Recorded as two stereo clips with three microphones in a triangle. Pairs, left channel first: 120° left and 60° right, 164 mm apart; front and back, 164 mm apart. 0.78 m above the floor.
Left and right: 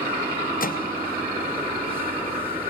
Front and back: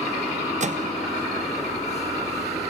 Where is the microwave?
140° left, 0.5 m.